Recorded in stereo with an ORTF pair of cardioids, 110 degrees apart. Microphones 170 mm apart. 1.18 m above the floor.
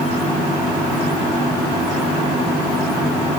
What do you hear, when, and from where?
Only background noise.